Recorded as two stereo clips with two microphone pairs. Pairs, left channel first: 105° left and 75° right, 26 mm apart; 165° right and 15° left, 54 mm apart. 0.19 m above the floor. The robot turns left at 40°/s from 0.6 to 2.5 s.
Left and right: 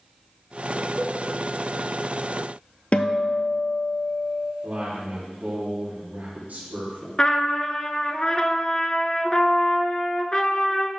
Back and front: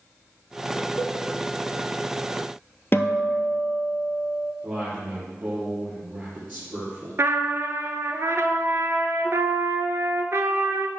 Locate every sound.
1.0 s a cowbell: 165° right, 0.6 m; by 1.2 s 175° right, 0.6 m
2.9 s a guitar: 145° left, 0.7 m
4.6 s a man speaking: 40° right, 3.5 m
7.2 s a trumpet: 45° left, 0.6 m